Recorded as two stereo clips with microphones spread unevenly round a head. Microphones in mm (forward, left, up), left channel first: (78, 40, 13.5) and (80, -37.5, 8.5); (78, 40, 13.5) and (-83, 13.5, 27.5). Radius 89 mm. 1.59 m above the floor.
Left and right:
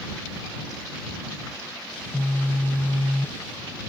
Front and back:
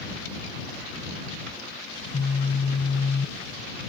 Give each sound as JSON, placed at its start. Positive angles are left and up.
{"t": 1.9, "sound": "a phone buzzing", "azimuth_deg": 30}